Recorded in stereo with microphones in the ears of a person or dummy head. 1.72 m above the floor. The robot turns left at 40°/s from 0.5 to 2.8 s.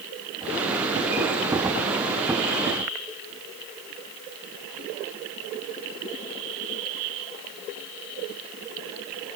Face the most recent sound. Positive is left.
No sound to turn to.